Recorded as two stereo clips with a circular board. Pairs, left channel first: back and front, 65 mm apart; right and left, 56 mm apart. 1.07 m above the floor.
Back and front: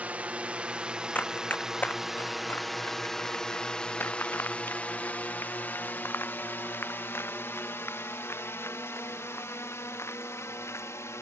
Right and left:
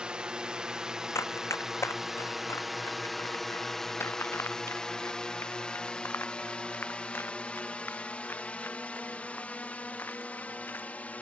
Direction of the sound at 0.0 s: 35° left.